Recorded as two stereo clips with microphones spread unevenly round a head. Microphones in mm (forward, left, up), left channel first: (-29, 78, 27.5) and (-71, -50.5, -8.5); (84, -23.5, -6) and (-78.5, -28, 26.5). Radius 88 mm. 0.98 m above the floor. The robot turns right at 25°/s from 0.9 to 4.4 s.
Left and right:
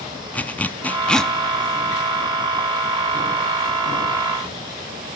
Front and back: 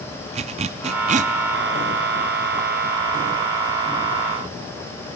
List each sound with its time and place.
0.3 s a zipper: 140° left, 0.6 m; by 1.3 s 150° left, 0.6 m